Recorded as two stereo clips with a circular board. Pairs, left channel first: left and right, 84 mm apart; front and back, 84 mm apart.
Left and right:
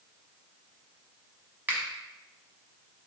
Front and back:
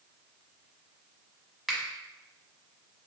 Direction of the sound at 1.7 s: 90° right.